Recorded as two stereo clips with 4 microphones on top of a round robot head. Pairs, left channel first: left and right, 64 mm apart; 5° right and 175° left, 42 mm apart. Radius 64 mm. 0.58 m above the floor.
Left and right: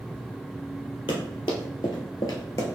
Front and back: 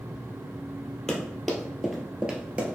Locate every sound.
1.1 s running footsteps: 75° left, 1.1 m; by 2.8 s 130° left, 0.8 m